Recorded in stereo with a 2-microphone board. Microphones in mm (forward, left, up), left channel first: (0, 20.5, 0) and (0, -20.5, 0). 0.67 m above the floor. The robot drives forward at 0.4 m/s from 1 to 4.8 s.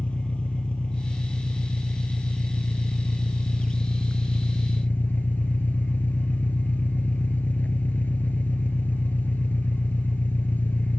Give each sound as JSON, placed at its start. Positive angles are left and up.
{"t": 0.0, "sound": "an engine running", "side_deg": 30}